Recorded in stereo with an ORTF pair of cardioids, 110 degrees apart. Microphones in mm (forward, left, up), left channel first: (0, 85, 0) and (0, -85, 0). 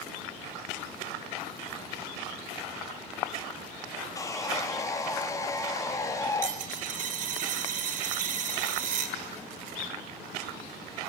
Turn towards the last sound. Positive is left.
turn(degrees=-55)